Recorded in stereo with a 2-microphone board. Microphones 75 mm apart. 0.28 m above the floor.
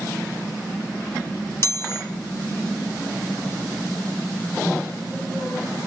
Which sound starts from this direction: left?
A chime, at 1.6 s.